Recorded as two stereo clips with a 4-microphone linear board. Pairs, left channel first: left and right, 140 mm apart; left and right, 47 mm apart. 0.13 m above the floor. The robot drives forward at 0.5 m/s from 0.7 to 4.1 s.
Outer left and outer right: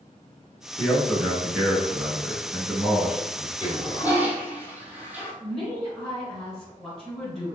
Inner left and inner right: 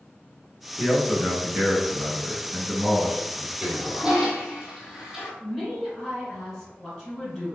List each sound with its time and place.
0.8 s a man speaking: 5° right (ahead or behind), 1.3 m
3.6 s a toilet flushing: 15° right (ahead or behind), 0.8 m; by 5.3 s 10° right (ahead or behind), 1.0 m
5.4 s a woman speaking: 5° left (ahead or behind), 1.7 m